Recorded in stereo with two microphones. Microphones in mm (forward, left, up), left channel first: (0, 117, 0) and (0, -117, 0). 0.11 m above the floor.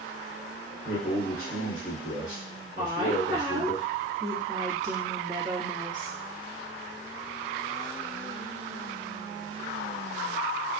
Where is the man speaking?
5° left (ahead or behind), 1.4 m.